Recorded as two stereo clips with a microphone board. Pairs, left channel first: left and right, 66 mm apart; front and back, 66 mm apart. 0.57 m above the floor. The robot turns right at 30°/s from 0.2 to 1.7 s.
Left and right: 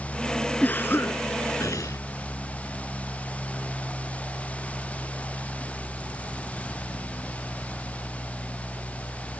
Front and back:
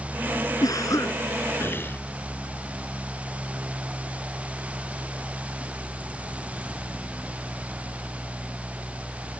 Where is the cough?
25° left; by 2.0 s 55° left.